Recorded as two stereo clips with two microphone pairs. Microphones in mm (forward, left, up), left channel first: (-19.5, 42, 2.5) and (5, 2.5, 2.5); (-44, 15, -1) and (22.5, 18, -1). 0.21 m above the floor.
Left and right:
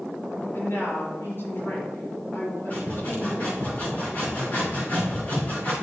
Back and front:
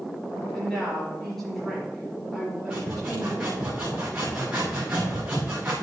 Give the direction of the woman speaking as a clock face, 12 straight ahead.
9 o'clock.